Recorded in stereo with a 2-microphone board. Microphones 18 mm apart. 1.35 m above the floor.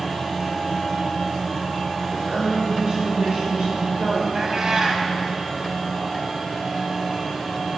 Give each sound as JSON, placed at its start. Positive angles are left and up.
{"t": 2.1, "sound": "a woman speaking", "side_deg": -55, "distance_m": 3.0}
{"t": 4.3, "sound": "a cat meowing", "side_deg": -40, "distance_m": 1.5}